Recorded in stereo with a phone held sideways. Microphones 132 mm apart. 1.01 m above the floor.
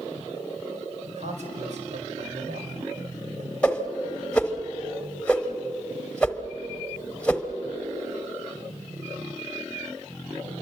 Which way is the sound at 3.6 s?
10° left (ahead or behind).